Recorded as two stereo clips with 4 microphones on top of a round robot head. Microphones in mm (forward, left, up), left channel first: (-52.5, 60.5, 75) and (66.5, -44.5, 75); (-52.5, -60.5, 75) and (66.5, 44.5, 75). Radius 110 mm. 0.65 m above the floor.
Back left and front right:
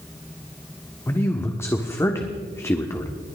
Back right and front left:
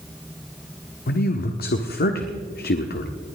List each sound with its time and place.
1.1 s a man speaking: 145° right, 1.3 m